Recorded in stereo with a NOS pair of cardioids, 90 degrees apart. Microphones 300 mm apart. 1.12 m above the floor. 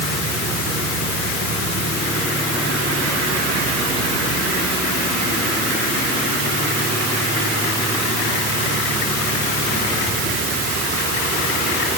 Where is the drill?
No drill in this recording.